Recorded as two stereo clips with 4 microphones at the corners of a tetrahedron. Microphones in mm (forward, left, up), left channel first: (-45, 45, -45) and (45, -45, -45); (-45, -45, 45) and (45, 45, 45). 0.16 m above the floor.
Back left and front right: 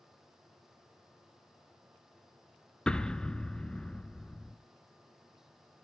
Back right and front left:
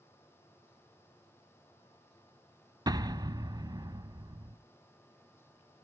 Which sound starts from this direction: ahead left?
An explosion, at 2.9 s.